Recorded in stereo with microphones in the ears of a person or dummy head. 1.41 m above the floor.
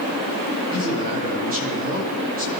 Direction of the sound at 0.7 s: 45° right (ahead or behind).